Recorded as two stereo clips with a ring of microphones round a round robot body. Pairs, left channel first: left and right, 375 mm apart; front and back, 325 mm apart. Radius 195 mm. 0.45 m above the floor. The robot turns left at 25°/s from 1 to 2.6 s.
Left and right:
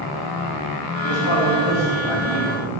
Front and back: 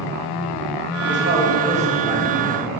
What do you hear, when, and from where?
1.0 s a man speaking: 130° left, 3 m; by 2.8 s 90° left, 3 m